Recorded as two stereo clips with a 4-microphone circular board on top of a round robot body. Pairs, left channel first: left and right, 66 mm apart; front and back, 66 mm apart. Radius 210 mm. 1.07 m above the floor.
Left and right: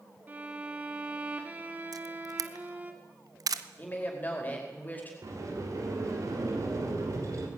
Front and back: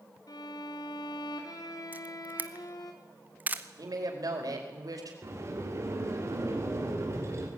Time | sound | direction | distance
0.3 | a violin | 25° right | 2 m
1.9 | a camera shutter | 115° right | 0.9 m
3.8 | a woman speaking | 155° left | 5 m
5.2 | a sliding door | 130° right | 3.5 m